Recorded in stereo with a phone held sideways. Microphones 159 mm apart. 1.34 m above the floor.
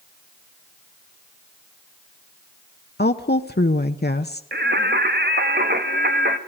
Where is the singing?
80° right, 1.7 m.